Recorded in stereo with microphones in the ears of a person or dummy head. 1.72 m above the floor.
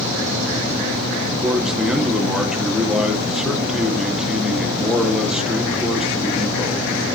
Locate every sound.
1.4 s a man speaking: 5° right (ahead or behind), 1.2 m